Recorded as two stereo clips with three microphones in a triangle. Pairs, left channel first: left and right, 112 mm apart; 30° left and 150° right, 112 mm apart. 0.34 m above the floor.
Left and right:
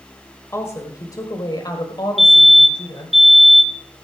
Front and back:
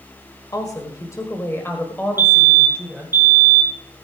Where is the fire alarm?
Straight behind, 2 m.